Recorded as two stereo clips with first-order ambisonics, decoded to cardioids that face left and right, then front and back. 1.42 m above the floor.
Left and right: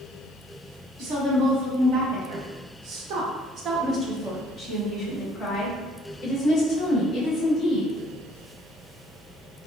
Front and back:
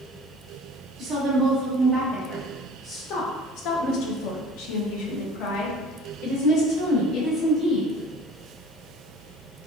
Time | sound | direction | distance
1.0 | a woman speaking | 95° right | 1.8 m